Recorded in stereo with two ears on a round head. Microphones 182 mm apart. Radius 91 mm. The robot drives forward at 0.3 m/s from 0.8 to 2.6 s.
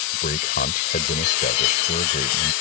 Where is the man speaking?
45° left (ahead or behind); by 2.5 s 40° left (ahead or behind).